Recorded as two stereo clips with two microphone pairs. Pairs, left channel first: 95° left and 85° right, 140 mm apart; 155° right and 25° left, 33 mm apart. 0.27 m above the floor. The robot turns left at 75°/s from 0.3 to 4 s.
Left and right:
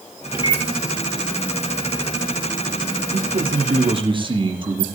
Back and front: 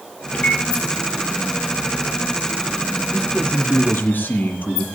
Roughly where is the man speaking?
Right.